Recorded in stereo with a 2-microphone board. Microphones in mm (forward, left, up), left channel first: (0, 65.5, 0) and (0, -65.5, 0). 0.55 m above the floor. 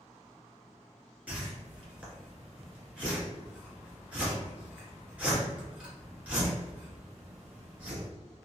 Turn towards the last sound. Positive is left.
turn(degrees=-10)  # may be behind; listen again after turning